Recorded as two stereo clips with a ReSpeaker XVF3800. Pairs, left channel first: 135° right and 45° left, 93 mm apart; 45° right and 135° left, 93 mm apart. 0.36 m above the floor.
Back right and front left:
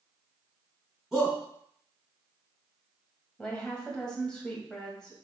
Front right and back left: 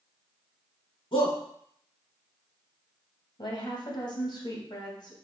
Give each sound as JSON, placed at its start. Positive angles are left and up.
{"t": 1.1, "sound": "a shout", "azimuth_deg": -45, "distance_m": 3.0}
{"t": 3.4, "sound": "a woman speaking", "azimuth_deg": -55, "distance_m": 2.5}